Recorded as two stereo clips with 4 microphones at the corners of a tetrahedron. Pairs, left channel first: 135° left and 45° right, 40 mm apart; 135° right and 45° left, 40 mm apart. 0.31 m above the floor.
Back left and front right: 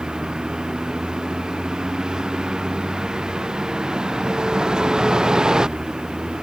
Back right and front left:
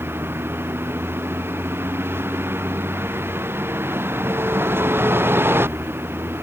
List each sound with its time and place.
0.0 s a vehicle: 25° left